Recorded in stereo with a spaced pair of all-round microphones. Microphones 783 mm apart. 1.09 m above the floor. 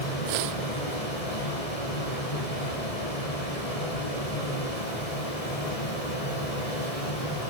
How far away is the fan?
About 9.5 m.